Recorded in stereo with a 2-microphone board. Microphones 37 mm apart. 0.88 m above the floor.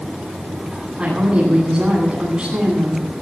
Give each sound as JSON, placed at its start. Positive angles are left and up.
{"t": 1.0, "sound": "a woman speaking", "side_deg": -25, "distance_m": 9.5}